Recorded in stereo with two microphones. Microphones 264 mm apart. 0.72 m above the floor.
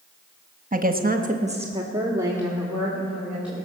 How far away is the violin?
No violin in this recording.